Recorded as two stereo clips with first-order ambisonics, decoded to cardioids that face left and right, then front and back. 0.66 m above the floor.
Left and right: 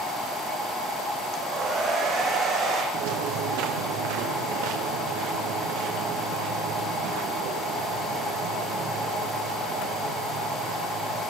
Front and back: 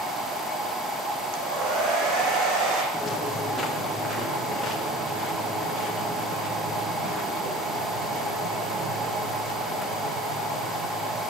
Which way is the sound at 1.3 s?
150° right.